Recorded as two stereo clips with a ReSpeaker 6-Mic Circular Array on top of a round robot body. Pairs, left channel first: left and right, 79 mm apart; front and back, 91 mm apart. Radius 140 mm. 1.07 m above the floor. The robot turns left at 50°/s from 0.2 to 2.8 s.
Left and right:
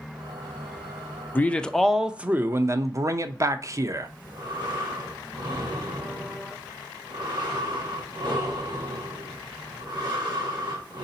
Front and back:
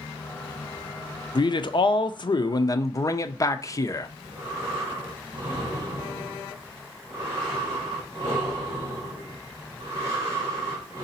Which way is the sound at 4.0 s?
120° right.